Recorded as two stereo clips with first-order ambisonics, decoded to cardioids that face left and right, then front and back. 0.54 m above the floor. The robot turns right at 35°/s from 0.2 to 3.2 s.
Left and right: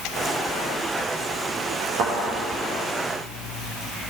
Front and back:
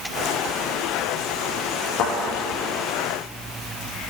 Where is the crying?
I don't hear crying.